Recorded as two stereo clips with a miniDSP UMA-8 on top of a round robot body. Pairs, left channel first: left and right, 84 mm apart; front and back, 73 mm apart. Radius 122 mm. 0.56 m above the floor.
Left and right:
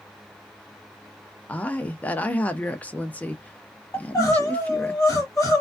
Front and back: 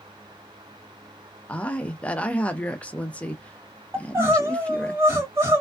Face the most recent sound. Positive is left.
turn(degrees=135)